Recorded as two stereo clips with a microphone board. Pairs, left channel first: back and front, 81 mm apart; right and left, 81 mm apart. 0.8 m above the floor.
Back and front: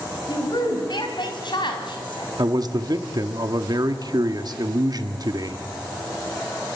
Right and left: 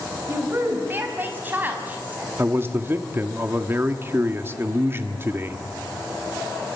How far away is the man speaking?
About 1.5 m.